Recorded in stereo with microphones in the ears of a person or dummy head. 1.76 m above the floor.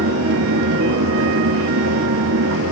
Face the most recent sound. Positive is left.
turn(degrees=-70)  # may be behind; listen again after turning